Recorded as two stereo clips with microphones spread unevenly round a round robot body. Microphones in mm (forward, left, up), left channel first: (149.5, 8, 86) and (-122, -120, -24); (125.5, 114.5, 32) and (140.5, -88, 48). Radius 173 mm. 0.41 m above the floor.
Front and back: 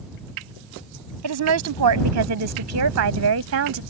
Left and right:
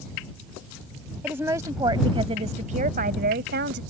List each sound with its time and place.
1.2 s a woman speaking: 170° right; by 3.8 s 130° right